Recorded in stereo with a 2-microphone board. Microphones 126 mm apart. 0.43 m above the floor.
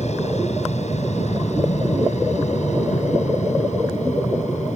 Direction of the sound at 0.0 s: 60° left (ahead or behind).